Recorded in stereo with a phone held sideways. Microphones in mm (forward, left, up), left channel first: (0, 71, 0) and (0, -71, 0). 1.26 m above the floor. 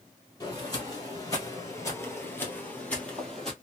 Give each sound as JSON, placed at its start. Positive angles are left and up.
{"t": 0.4, "sound": "footsteps", "side_deg": 25, "distance_m": 1.7}